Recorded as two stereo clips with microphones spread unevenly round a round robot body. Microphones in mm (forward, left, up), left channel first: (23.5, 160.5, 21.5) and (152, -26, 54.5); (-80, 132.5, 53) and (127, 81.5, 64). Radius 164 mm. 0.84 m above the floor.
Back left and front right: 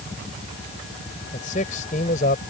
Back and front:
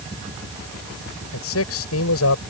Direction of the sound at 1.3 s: 165° right.